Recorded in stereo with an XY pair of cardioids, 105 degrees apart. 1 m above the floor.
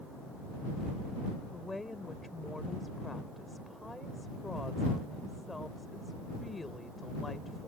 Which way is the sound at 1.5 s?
15° left.